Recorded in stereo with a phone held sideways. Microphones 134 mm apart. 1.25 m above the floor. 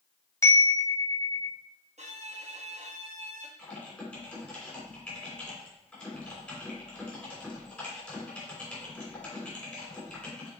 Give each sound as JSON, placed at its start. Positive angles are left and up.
{"t": 0.4, "sound": "a chime", "side_deg": 20, "distance_m": 0.8}
{"t": 2.0, "sound": "a violin", "side_deg": -55, "distance_m": 1.2}
{"t": 3.6, "sound": "typing on a keyboard", "side_deg": 10, "distance_m": 3.0}